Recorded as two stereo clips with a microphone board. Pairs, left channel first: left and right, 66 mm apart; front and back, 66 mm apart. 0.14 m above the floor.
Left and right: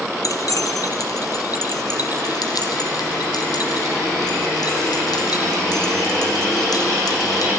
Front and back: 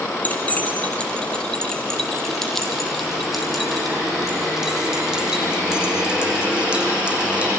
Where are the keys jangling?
65° left, 3.5 m; by 7.5 s 110° left, 6 m.